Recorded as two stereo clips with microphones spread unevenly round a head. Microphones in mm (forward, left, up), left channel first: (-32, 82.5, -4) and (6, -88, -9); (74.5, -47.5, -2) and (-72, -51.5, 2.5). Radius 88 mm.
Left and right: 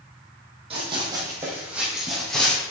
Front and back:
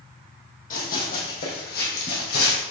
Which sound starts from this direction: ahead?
Running footsteps, at 0.7 s.